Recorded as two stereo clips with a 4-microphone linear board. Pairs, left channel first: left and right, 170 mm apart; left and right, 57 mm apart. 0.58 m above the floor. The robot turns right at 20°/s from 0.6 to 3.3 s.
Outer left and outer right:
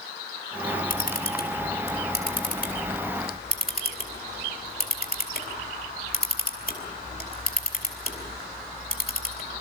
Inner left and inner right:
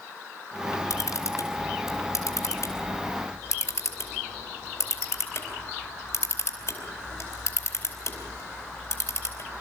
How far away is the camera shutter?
About 4 m.